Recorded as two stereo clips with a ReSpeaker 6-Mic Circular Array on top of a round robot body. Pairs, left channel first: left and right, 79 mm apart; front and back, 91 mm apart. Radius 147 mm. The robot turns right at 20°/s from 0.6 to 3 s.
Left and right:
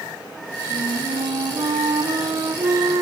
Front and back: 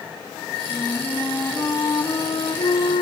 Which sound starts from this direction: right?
A flute, at 0.7 s.